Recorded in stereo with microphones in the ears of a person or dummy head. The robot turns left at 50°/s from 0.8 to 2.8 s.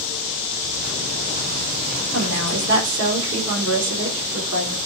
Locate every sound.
2.1 s a woman speaking: 85° right, 5 m; by 4.8 s 120° right, 5 m